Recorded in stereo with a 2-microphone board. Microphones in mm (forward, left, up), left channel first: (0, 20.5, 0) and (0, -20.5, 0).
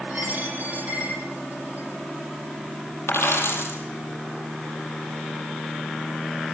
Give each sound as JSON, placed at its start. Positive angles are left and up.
{"t": 0.1, "sound": "a dropped coin", "side_deg": -45, "distance_m": 9.5}
{"t": 3.1, "sound": "a dropped coin", "side_deg": 85, "distance_m": 5.0}